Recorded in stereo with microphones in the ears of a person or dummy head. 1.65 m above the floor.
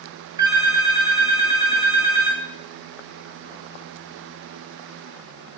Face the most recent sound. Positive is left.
turn(degrees=-20)  # may be behind; listen again after turning